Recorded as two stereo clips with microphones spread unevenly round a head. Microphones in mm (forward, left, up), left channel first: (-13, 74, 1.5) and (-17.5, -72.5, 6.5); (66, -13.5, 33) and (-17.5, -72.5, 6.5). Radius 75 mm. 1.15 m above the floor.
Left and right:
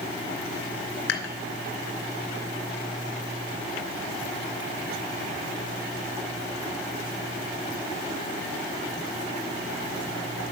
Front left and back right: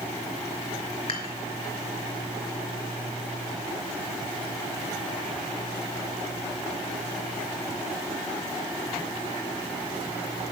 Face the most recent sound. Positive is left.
turn(degrees=90)